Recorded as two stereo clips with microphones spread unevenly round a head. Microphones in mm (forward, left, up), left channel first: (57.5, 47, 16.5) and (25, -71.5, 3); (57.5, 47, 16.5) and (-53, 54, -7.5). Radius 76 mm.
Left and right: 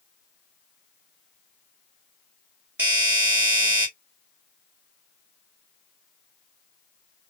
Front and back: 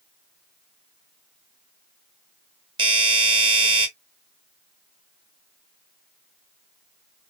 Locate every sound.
2.8 s a doorbell: 175° right, 1.6 m